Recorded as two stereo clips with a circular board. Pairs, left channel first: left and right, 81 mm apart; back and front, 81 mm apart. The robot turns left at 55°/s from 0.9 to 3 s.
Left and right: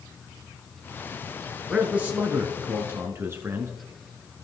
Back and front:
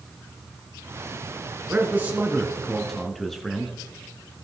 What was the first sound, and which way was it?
A man speaking, 25° right.